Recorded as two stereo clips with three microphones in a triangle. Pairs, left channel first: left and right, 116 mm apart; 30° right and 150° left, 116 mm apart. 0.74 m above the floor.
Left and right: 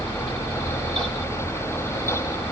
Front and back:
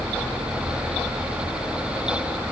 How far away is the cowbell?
No cowbell in this recording.